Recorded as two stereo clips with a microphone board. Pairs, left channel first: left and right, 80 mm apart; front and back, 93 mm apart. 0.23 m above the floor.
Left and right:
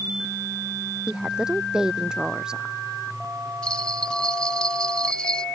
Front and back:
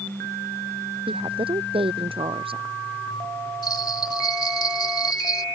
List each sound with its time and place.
1.1 s a woman speaking: 170° right
3.6 s a bell: 15° left